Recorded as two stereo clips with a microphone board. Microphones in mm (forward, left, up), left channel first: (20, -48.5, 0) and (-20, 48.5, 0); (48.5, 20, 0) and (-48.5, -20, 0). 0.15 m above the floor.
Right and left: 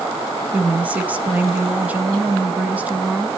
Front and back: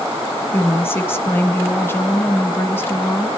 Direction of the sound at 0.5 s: 55° left.